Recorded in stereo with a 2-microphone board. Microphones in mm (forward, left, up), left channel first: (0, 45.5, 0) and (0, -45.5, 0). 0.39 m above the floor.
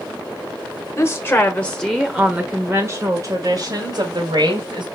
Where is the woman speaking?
35° left (ahead or behind), 1.3 m; by 4.9 s 65° right (ahead or behind), 2 m.